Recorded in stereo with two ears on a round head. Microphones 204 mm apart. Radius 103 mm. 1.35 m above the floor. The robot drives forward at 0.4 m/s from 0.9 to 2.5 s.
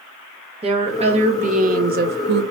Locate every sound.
0.6 s a woman speaking: 25° right (ahead or behind), 1.0 m; by 2.4 s 50° right (ahead or behind), 0.5 m